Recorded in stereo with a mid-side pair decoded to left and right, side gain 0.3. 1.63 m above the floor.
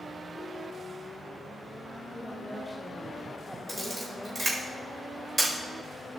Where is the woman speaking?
5° right, 4 m.